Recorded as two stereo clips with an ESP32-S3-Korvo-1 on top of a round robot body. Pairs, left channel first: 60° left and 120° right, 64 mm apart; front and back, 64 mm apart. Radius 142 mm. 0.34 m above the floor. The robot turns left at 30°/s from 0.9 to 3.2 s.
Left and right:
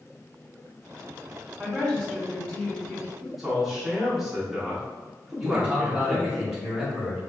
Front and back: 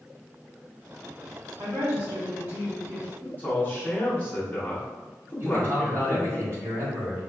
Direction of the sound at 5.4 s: 160° left.